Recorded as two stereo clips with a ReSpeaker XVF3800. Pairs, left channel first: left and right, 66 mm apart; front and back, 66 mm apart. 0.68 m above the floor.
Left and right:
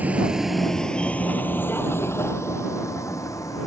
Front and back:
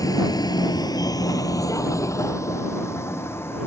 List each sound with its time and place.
0.0 s a vehicle: 25° right; by 3.7 s 55° left